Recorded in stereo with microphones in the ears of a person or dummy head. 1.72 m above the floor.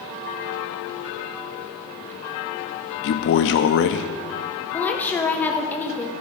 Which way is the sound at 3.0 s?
50° left (ahead or behind).